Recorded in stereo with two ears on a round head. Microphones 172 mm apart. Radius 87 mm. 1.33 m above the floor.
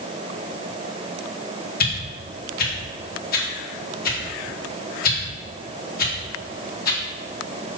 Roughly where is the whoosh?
Left.